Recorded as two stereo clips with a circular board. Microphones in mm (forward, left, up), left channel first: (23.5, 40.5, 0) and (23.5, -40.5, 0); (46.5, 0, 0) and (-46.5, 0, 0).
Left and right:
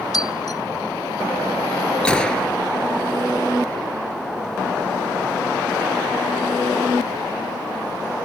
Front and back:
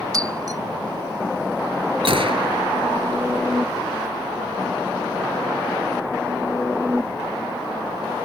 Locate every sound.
0.1 s breaking glass: 130° left
2.0 s a gunshot: 170° left